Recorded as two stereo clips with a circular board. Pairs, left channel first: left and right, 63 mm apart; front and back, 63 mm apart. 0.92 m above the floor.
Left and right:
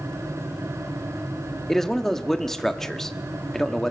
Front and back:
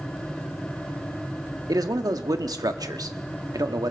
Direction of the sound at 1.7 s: 175° left.